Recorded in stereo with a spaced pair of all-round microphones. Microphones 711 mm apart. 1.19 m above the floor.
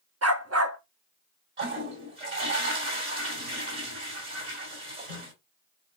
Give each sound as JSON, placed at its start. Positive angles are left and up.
{"t": 0.2, "sound": "a dog barking", "side_deg": -20, "distance_m": 0.8}
{"t": 1.6, "sound": "a toilet flushing", "side_deg": -75, "distance_m": 1.9}